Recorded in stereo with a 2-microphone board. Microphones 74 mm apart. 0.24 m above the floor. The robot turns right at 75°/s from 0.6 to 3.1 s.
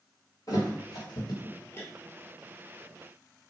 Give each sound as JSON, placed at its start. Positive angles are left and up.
{"t": 0.5, "sound": "a thud", "side_deg": 55, "distance_m": 0.9}